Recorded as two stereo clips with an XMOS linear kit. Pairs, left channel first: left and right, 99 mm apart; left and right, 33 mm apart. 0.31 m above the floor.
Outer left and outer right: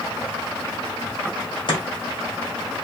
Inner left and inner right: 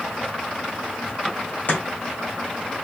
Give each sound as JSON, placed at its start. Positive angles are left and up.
{"t": 1.7, "sound": "chopping", "side_deg": 55, "distance_m": 2.0}